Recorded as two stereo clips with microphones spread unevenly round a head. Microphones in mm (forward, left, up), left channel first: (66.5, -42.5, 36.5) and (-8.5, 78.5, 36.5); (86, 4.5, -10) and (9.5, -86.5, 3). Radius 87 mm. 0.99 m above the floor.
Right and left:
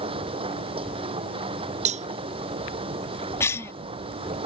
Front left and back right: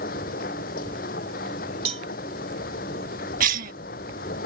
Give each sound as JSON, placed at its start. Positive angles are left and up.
{"t": 0.0, "sound": "a machine running", "azimuth_deg": 70}
{"t": 1.9, "sound": "a cowbell", "azimuth_deg": 170}
{"t": 3.4, "sound": "a cough", "azimuth_deg": -135}